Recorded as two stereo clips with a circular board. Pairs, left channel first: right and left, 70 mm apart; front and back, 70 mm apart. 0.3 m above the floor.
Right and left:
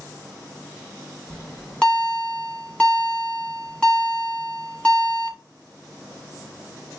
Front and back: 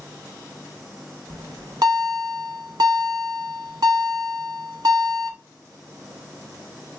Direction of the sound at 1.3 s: 170° right.